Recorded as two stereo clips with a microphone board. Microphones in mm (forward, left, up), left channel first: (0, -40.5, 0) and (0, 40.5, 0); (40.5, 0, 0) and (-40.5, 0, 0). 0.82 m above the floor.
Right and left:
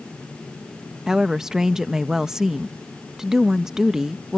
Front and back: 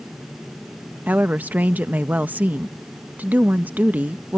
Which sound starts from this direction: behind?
A woman speaking, at 1.1 s.